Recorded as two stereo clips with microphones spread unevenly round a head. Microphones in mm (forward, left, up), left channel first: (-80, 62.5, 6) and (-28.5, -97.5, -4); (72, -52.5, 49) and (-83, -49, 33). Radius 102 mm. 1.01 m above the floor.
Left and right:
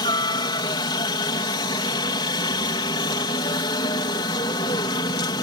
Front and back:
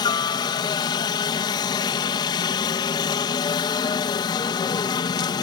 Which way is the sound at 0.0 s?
55° left.